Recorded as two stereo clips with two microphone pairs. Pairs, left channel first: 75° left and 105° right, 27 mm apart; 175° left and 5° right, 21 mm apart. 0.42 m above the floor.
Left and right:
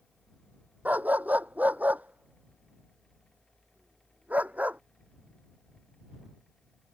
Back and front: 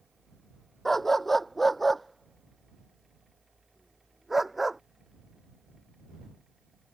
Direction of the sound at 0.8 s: 110° right.